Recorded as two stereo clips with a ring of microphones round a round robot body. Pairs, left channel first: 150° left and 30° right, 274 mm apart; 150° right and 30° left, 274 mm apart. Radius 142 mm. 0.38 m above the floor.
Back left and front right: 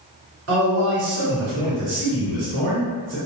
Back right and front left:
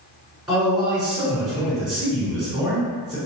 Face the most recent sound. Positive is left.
turn(degrees=-60)